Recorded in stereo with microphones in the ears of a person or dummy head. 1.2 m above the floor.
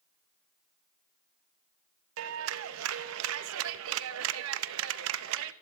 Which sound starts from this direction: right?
A clap, at 2.2 s.